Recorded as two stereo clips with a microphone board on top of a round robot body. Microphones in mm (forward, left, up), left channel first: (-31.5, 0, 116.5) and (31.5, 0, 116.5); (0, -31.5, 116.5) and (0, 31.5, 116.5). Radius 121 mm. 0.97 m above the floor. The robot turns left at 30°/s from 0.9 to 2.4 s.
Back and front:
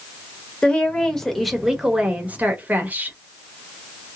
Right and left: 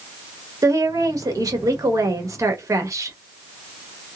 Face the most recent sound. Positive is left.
turn(degrees=60)